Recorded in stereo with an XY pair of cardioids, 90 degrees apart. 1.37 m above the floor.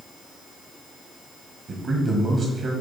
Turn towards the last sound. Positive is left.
turn(degrees=-65)